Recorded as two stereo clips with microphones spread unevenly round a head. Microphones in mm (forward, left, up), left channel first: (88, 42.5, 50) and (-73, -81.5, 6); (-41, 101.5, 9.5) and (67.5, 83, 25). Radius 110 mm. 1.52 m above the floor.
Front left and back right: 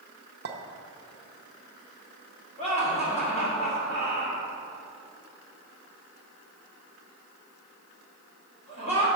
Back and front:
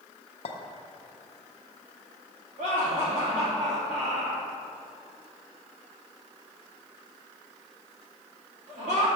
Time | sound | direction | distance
0.5 | a clink | straight behind | 0.7 m
2.6 | laughter | 20° right | 2.5 m